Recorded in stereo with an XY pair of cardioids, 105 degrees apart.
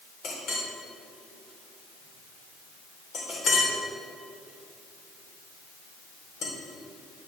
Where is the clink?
65° left, 3.5 m.